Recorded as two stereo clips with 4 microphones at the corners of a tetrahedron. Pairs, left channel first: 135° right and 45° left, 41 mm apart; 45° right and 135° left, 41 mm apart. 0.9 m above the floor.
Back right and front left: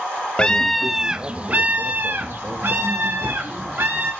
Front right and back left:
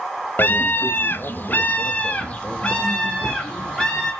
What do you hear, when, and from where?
0.4 s a scream: 70° right, 0.6 m; by 4.1 s 25° left, 1.8 m